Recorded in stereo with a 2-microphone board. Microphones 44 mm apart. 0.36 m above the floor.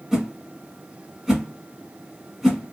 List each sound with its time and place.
0.1 s a whoosh: 10° right (ahead or behind), 1.2 m